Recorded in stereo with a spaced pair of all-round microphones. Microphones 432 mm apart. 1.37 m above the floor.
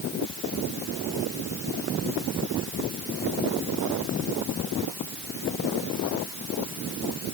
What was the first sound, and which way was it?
Only background noise.